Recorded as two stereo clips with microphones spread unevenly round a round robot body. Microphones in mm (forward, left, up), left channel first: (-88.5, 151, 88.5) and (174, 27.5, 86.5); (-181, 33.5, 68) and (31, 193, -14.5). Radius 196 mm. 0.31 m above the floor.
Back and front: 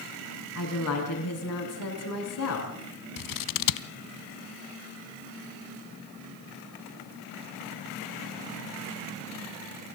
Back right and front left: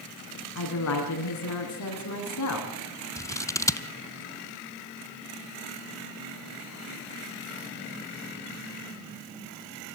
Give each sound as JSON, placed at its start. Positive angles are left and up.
{"t": 0.6, "sound": "a woman speaking", "azimuth_deg": -165, "distance_m": 4.0}
{"t": 3.2, "sound": "scissors", "azimuth_deg": 135, "distance_m": 0.7}